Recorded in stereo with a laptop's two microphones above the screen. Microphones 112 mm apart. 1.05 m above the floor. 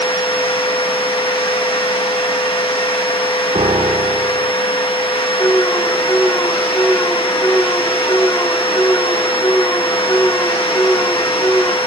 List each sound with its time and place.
0.0 s a machine running: 50° left (ahead or behind), 1.4 m
3.5 s a piano: 55° right (ahead or behind), 0.8 m
5.4 s an alarm: 25° left (ahead or behind), 1.9 m